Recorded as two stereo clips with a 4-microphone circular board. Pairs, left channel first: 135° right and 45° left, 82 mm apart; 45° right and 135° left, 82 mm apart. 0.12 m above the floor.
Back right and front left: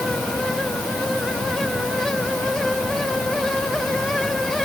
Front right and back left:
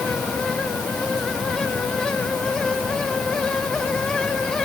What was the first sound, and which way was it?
Only background noise.